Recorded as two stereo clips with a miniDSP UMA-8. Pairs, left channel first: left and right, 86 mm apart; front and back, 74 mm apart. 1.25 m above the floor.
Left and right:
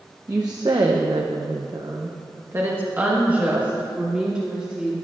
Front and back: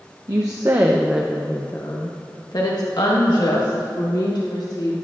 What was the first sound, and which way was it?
A woman speaking, 140° right.